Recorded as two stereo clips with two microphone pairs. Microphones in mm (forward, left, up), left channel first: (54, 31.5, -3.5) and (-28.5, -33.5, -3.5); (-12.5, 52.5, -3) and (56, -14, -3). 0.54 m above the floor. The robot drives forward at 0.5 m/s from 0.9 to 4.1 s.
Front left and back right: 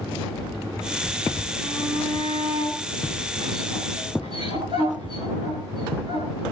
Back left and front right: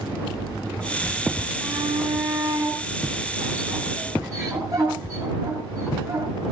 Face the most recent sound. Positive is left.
turn(degrees=-100)